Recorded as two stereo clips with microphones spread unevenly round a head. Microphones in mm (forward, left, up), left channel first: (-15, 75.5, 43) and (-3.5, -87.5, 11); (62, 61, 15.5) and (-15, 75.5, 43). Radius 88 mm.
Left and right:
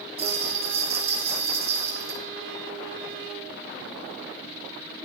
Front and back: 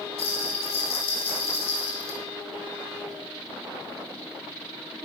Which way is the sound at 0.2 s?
25° right.